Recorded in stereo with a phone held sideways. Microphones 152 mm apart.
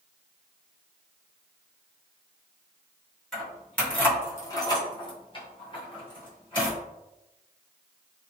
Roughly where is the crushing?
I don't hear crushing.